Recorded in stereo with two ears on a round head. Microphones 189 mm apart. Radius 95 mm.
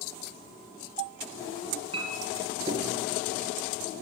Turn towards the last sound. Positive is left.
turn(degrees=-25)  # may be behind; listen again after turning